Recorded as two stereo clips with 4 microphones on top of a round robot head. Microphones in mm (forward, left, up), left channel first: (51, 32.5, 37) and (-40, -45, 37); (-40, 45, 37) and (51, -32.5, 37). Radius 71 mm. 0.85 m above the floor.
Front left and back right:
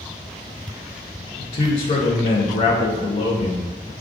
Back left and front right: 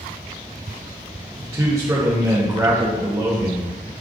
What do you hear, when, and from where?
1.4 s a man speaking: 20° left, 0.7 m